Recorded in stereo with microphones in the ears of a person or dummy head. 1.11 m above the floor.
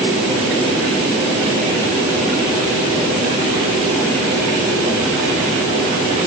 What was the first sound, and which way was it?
Only background noise.